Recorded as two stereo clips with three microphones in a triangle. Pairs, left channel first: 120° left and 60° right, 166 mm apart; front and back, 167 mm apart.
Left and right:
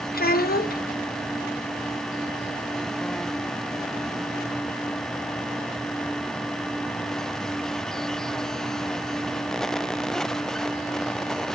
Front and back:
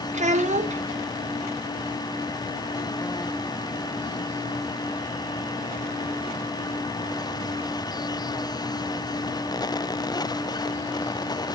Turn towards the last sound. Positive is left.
turn(degrees=140)